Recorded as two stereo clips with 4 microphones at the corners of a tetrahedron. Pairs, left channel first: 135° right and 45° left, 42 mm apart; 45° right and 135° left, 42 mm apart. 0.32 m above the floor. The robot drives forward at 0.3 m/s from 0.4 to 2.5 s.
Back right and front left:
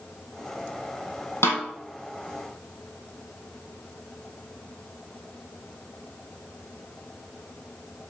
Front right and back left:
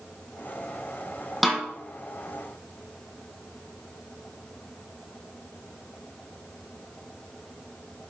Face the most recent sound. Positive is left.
turn(degrees=-145)